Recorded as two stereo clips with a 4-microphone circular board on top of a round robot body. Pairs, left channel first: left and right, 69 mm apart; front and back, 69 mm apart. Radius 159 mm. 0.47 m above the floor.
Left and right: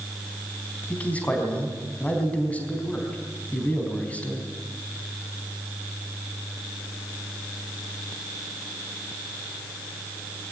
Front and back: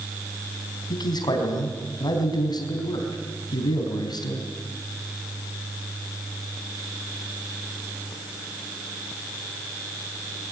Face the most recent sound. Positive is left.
turn(degrees=20)